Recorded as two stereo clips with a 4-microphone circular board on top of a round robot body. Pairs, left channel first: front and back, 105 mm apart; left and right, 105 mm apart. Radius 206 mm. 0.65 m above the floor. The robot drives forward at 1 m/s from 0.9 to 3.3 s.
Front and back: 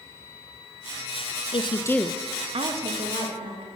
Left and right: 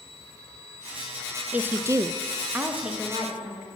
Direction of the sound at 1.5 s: 15° right.